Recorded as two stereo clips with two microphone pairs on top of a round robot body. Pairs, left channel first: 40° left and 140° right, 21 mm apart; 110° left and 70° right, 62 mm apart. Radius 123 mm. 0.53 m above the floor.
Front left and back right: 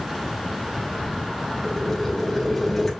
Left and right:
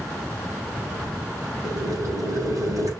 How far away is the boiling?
About 3.5 m.